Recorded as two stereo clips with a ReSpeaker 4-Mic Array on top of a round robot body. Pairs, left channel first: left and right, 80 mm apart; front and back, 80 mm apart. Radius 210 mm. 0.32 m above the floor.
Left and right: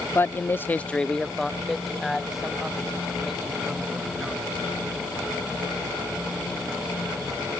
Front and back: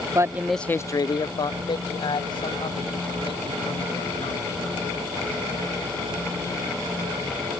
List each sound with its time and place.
0.1 s a man speaking: 145° left; by 4.6 s 5° right